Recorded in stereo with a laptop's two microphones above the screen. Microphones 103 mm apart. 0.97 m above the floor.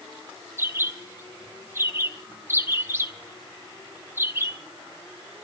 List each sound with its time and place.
0.6 s a bird: 25° right (ahead or behind), 0.8 m